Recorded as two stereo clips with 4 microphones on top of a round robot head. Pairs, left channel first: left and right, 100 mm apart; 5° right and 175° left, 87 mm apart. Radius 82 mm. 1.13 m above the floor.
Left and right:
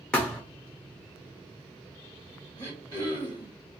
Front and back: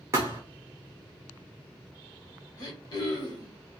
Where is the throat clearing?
25° left, 1.3 m.